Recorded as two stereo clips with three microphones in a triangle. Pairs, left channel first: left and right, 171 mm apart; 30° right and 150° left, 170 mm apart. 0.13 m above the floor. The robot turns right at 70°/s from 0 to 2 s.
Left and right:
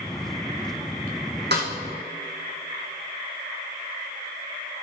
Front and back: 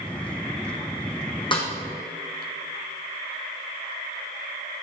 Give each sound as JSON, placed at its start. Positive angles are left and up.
{"t": 1.5, "sound": "a snare drum", "azimuth_deg": -95, "distance_m": 2.5}